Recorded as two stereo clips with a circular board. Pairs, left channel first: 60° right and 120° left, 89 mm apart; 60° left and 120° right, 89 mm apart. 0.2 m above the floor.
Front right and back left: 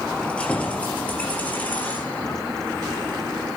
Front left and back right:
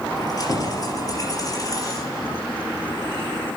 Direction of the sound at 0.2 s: 15° left.